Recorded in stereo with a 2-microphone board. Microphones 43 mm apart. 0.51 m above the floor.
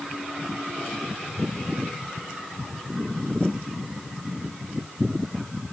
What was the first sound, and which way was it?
Only background noise.